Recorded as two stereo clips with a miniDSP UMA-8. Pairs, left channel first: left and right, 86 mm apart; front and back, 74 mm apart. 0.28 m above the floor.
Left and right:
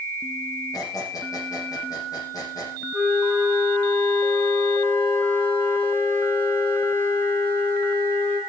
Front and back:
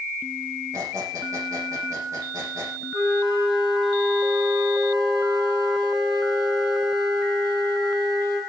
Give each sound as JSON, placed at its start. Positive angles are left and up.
{"t": 0.7, "sound": "a squeak", "azimuth_deg": 135, "distance_m": 8.0}
{"t": 2.9, "sound": "a flute", "azimuth_deg": 155, "distance_m": 6.5}